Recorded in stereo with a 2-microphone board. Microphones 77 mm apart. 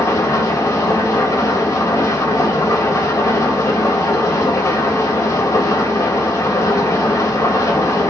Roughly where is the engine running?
Left.